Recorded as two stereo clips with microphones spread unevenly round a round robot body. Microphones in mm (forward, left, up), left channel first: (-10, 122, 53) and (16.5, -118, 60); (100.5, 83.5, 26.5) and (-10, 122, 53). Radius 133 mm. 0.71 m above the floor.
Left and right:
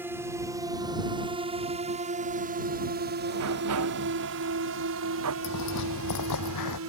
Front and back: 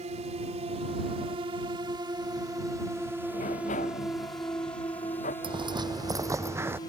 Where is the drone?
165° right; by 6.9 s 65° right.